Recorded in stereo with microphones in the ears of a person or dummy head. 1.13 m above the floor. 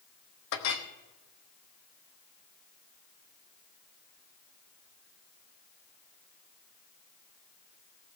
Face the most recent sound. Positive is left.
turn(degrees=65)  # may be behind; listen again after turning